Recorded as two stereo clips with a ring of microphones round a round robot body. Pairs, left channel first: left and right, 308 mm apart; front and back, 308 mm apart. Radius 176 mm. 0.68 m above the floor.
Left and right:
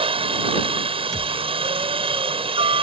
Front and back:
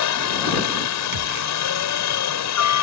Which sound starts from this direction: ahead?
A helicopter, at 0.0 s.